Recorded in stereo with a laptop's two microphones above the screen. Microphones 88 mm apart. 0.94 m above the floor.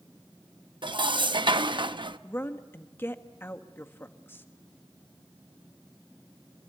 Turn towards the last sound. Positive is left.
turn(degrees=25)  # may be behind; listen again after turning